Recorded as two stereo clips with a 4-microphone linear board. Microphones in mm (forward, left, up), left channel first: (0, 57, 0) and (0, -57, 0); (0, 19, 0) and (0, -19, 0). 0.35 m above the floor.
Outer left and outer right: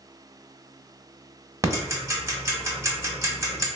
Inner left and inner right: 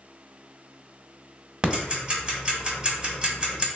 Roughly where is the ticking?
Right.